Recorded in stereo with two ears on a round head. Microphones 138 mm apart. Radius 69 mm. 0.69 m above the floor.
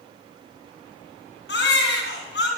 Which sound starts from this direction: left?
A baby crying, at 1.5 s.